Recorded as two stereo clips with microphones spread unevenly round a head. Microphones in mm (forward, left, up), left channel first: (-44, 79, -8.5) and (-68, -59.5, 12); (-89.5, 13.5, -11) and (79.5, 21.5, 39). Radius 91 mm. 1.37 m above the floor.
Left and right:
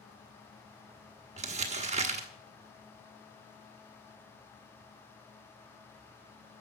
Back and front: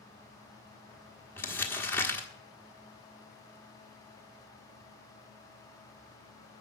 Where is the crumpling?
85° right, 1.3 m.